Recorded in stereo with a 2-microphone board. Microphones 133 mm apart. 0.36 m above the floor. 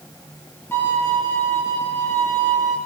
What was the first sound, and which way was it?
A violin, 20° left (ahead or behind).